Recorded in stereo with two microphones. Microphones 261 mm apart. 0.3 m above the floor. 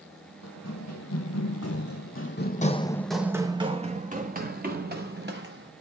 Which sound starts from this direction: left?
Running footsteps, at 0.4 s.